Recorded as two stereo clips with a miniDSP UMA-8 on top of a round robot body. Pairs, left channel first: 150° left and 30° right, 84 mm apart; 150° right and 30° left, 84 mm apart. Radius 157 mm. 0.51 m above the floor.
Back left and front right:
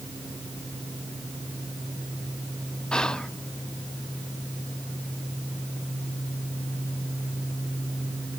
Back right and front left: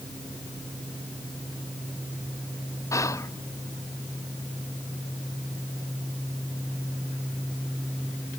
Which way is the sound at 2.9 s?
135° right.